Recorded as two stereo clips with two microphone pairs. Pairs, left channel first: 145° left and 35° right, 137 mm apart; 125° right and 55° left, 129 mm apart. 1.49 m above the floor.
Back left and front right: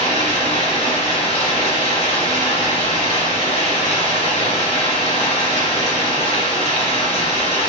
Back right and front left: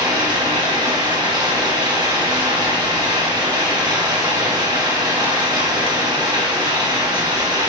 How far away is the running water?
About 1.3 m.